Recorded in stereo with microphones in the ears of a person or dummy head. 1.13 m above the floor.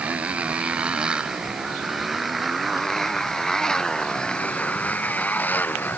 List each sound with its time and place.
0.0 s a motorcycle: 10° right (ahead or behind); by 6.0 s 10° left (ahead or behind)